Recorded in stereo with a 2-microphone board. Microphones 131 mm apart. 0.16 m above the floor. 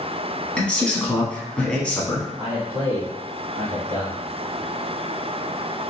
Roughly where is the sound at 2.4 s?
Right.